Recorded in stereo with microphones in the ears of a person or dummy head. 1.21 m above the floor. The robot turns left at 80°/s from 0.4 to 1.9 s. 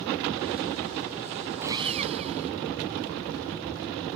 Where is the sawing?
15° right (ahead or behind); by 2.5 s 40° right (ahead or behind).